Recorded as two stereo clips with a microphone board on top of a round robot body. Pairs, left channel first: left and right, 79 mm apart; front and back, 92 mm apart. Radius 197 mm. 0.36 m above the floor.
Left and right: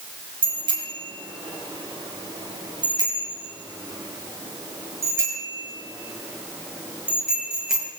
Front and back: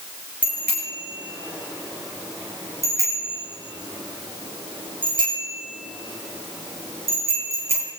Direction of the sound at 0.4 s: 105° right.